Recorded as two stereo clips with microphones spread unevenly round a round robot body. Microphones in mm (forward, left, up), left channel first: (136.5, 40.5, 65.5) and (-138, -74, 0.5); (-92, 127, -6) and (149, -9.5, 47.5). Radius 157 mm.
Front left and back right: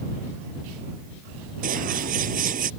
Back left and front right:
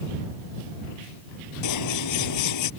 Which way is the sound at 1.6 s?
135° left.